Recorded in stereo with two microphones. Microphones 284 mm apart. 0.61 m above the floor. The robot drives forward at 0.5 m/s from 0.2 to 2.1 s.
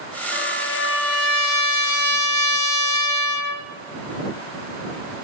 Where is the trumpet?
40° left (ahead or behind), 1.0 m; by 3.7 s 75° left (ahead or behind), 0.6 m.